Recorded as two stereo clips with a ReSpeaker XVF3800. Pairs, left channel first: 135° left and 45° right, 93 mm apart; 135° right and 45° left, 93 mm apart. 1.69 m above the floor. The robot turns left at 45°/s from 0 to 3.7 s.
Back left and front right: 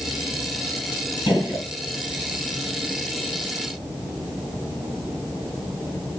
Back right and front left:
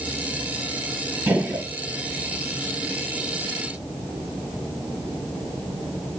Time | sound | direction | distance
1.3 | a gunshot | 115° left | 1.3 m